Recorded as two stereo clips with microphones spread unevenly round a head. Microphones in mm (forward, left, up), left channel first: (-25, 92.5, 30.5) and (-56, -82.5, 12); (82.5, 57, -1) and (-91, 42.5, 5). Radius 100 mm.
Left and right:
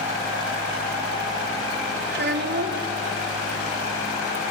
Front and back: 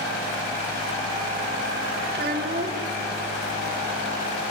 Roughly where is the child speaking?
Behind right.